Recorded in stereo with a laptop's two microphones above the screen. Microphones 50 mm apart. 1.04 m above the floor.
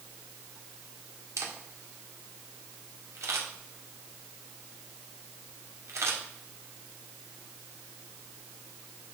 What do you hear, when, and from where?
1.4 s a camera shutter: 70° right (ahead or behind), 1.9 m